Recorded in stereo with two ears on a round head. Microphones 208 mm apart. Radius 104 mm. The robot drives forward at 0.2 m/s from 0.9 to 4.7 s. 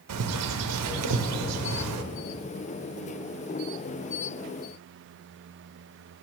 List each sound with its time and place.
0.1 s a bird: 70° right (ahead or behind), 0.6 m